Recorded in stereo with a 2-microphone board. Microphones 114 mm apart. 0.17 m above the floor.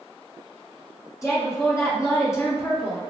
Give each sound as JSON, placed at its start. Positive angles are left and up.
{"t": 1.2, "sound": "a woman speaking", "side_deg": 25, "distance_m": 1.7}